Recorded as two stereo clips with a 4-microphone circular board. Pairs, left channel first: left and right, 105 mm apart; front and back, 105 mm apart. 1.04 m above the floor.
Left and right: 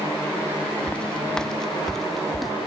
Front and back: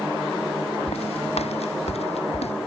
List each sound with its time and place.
0.9 s footsteps: 10° left; by 2.5 s straight ahead